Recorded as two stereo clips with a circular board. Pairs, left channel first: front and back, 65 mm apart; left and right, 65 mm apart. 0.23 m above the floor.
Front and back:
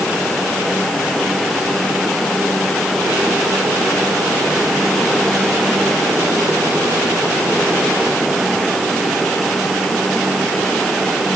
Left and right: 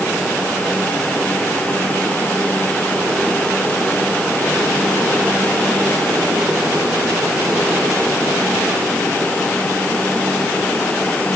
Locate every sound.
Only background noise.